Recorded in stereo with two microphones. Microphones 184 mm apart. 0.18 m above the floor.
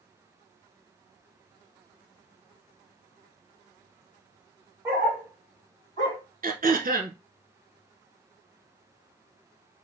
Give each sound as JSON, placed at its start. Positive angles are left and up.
{"t": 4.8, "sound": "a dog barking", "side_deg": -15, "distance_m": 2.0}
{"t": 6.4, "sound": "throat clearing", "side_deg": -50, "distance_m": 0.7}